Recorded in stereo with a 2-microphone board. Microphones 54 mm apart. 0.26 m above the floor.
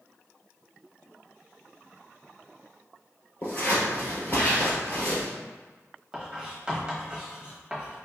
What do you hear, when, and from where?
3.4 s scissors: 35° left (ahead or behind), 1.7 m
6.1 s writing: 20° right (ahead or behind), 1.1 m